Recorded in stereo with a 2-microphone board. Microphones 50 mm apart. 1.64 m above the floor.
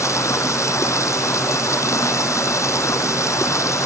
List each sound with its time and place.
0.0 s running water: 85° left